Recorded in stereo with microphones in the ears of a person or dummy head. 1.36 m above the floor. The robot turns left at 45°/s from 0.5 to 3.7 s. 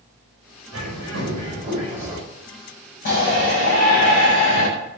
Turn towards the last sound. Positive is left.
turn(degrees=75)  # may be behind; listen again after turning